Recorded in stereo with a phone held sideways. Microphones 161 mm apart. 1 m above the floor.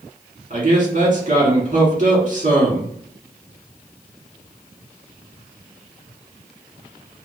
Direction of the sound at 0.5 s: 50° right (ahead or behind).